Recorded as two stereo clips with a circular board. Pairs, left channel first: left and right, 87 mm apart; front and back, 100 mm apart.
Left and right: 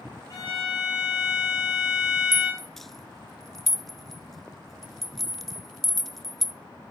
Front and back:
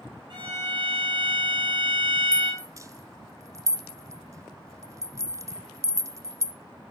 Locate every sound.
0.3 s a violin: 140° left, 7 m
2.3 s a rattle: 175° left, 0.6 m